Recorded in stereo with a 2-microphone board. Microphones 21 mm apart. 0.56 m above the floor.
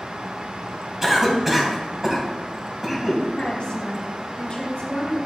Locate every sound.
1.0 s a cough: 15° right (ahead or behind), 3 m
3.3 s a woman speaking: 35° left (ahead or behind), 2.5 m